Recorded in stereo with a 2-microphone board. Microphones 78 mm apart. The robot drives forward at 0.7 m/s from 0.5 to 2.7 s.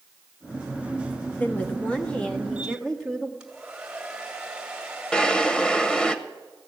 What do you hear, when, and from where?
1.4 s a woman speaking: 20° left (ahead or behind), 1.0 m; by 3.3 s 10° left (ahead or behind), 1.8 m
3.4 s a hair dryer: 5° right (ahead or behind), 2 m
5.1 s a drawer: 10° left (ahead or behind), 0.7 m